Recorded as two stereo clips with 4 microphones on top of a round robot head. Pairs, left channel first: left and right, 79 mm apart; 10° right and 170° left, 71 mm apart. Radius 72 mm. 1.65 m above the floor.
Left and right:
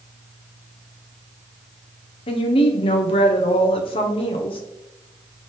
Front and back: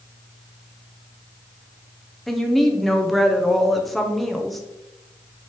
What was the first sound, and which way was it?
A woman speaking, 80° left.